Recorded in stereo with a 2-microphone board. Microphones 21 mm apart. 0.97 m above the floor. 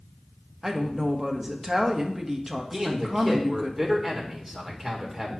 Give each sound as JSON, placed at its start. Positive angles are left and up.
{"t": 0.6, "sound": "a woman speaking", "side_deg": -25, "distance_m": 1.1}
{"t": 2.7, "sound": "a man speaking", "side_deg": -15, "distance_m": 1.9}